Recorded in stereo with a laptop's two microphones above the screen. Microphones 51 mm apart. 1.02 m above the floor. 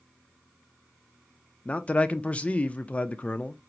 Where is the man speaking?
25° left (ahead or behind), 0.5 m.